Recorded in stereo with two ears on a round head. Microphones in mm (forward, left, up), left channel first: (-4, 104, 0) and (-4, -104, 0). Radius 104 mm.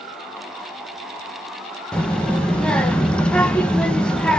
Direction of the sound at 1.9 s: 5° left (ahead or behind).